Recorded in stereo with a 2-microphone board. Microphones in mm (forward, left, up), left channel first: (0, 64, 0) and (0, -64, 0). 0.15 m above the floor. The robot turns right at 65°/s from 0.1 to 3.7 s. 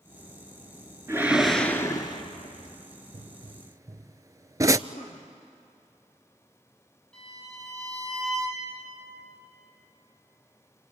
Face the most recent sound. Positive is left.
turn(degrees=10)  # may be behind; listen again after turning